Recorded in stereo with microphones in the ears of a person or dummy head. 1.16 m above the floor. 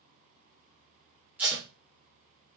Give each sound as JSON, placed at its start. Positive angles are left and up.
{"t": 1.4, "sound": "tape being pulled", "side_deg": -5, "distance_m": 1.4}